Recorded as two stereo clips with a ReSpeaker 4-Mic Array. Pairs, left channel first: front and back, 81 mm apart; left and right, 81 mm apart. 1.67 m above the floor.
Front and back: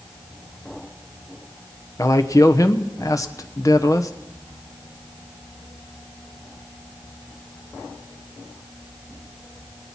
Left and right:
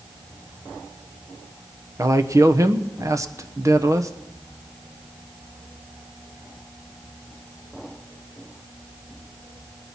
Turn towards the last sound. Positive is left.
turn(degrees=-45)